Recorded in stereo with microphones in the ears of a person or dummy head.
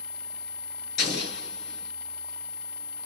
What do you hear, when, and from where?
1.0 s an explosion: 55° left (ahead or behind), 0.8 m